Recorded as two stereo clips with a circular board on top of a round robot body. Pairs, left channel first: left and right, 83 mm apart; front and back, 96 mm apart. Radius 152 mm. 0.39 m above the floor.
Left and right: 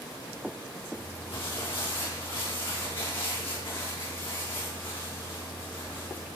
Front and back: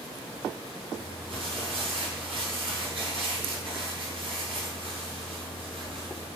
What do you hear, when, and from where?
0.9 s crumpling: 155° left, 5.5 m